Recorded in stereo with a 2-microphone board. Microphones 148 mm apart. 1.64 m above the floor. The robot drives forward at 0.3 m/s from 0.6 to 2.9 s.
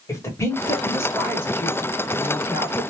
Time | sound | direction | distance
0.1 | a woman speaking | 20° left (ahead or behind) | 1.2 m